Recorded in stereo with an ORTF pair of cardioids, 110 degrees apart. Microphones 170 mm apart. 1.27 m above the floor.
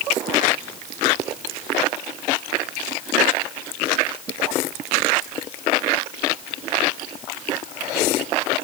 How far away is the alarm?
No alarm in this recording.